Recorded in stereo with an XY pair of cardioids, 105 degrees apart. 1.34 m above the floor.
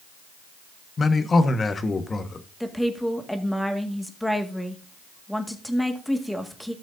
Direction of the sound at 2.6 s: 5° left.